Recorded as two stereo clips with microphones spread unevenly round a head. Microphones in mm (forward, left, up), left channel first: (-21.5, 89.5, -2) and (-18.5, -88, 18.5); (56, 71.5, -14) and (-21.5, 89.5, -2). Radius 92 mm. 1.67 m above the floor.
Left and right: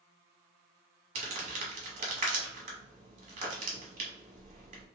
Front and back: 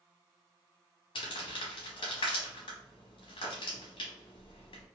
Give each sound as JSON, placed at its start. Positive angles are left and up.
{"t": 1.1, "sound": "crumpling", "azimuth_deg": -40, "distance_m": 1.0}